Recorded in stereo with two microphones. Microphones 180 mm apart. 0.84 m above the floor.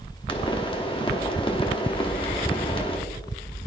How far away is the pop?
About 1.1 m.